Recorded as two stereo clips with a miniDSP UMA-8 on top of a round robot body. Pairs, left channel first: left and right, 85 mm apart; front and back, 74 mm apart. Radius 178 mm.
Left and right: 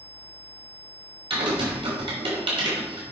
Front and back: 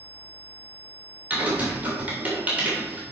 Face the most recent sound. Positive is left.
turn(degrees=-110)